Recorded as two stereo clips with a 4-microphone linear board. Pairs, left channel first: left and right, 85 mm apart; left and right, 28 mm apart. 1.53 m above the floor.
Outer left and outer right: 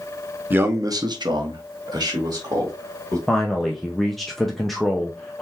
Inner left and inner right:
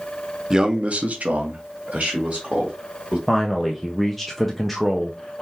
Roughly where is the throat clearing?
No throat clearing in this recording.